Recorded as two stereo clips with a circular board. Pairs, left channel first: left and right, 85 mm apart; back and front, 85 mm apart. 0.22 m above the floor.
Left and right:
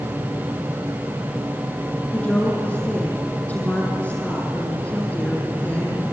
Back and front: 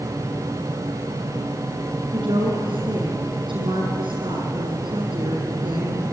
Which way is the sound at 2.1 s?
15° left.